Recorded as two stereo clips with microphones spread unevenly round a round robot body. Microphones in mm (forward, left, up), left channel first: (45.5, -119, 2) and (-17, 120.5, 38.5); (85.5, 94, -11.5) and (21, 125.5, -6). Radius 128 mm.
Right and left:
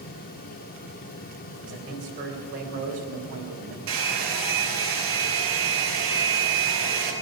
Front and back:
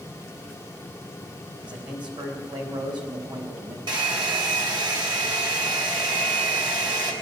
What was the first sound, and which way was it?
A man speaking, 155° left.